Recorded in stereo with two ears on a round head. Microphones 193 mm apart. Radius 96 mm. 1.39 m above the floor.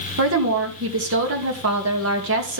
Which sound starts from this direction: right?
A woman speaking, at 0.2 s.